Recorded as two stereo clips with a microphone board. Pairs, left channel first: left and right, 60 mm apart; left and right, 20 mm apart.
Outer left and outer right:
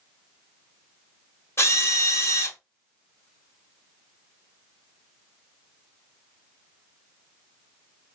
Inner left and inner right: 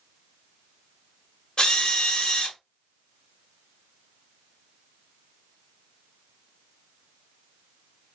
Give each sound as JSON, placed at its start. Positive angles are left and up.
{"t": 1.6, "sound": "a drill", "side_deg": 45, "distance_m": 1.3}